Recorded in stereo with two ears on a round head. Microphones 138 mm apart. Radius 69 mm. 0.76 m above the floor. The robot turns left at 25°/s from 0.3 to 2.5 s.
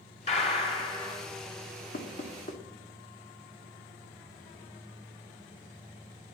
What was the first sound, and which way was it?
A gunshot, 45° left (ahead or behind).